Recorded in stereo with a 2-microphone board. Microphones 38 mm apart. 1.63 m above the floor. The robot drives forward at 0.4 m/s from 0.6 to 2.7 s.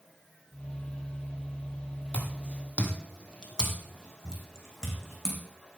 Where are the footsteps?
30° left (ahead or behind), 2.5 m; by 5.4 s 10° left (ahead or behind), 5.5 m.